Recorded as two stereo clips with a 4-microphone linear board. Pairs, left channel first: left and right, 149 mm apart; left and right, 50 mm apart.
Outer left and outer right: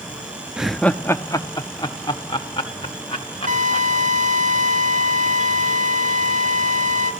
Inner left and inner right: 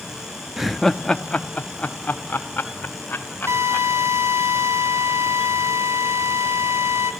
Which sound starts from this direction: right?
A drill, at 3.5 s.